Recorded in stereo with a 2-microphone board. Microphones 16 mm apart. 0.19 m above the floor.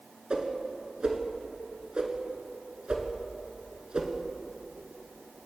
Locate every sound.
0.3 s a whoosh: 65° right (ahead or behind), 0.7 m